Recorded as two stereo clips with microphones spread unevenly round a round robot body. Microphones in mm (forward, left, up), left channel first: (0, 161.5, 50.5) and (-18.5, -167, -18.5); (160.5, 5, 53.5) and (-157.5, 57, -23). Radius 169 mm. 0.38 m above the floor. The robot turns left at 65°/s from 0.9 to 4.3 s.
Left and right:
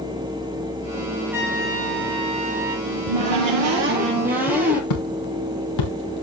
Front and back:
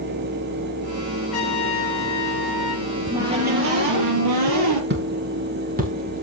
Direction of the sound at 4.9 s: 110° left.